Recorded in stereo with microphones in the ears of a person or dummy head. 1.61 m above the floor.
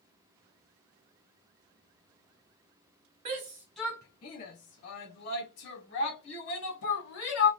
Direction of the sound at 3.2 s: 30° right (ahead or behind).